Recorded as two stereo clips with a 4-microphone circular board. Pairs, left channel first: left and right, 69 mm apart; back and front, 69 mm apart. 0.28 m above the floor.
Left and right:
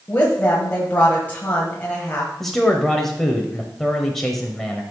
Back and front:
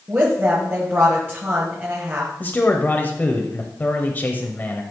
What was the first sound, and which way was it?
A woman speaking, 40° left.